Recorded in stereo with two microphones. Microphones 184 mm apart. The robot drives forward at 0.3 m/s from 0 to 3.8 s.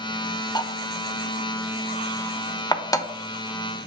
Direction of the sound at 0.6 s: 25° left (ahead or behind).